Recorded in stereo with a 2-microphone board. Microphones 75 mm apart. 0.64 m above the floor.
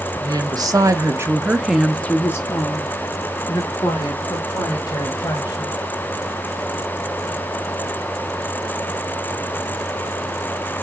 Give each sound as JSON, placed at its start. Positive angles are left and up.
{"t": 0.2, "sound": "a woman speaking", "side_deg": -65, "distance_m": 1.2}